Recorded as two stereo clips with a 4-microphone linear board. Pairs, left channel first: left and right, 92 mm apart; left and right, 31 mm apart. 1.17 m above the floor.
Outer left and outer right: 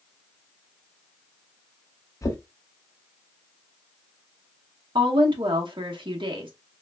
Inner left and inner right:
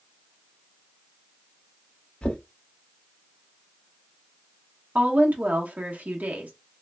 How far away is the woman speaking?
About 0.9 m.